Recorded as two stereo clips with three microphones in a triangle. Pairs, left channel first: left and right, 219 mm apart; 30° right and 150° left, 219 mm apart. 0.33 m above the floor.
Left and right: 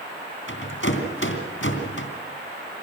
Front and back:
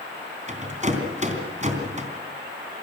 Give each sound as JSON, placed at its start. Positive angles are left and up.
{"t": 0.5, "sound": "a rattle", "azimuth_deg": 95, "distance_m": 3.0}